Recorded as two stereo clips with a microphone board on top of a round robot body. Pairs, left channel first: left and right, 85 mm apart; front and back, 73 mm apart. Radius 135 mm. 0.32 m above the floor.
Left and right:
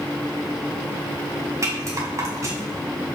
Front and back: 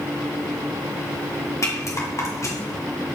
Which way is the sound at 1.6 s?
40° right.